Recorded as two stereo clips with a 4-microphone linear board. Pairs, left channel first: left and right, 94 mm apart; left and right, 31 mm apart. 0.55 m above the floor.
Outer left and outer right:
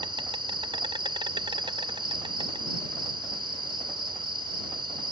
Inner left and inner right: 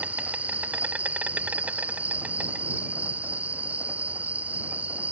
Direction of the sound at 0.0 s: 60° right (ahead or behind).